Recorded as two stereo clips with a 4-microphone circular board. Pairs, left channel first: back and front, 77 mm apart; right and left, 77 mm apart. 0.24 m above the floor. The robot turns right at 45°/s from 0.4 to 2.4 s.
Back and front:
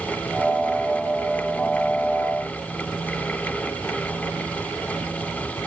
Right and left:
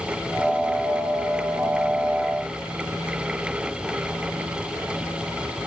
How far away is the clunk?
No clunk in this recording.